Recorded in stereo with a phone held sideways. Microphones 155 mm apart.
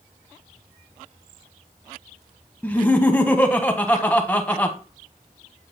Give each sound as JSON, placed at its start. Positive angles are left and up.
{"t": 2.6, "sound": "laughter", "side_deg": 10, "distance_m": 0.8}